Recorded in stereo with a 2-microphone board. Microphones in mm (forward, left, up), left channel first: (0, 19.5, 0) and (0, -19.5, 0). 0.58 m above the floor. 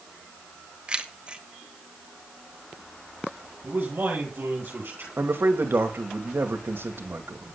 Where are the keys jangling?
25° right (ahead or behind), 1.4 m.